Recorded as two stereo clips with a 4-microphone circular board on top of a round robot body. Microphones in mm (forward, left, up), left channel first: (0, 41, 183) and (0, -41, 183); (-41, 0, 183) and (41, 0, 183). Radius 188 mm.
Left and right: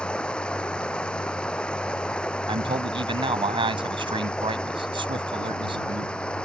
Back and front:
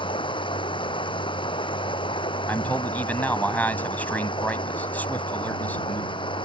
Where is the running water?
170° left.